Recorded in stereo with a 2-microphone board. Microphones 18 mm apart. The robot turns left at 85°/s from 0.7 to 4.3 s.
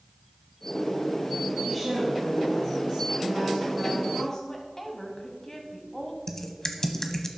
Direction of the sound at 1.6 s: 15° left.